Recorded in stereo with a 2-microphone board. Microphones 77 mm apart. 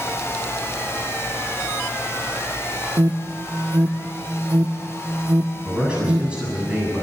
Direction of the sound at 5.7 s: 15° right (ahead or behind).